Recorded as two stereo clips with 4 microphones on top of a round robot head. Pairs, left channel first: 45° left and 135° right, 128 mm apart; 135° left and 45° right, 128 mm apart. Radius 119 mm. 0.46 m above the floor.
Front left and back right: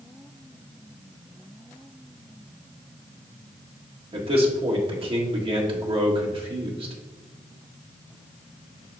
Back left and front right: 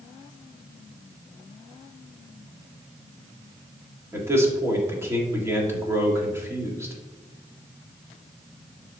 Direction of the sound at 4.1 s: 105° right.